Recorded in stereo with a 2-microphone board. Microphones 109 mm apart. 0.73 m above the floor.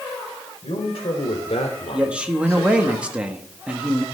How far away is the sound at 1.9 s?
About 1.2 m.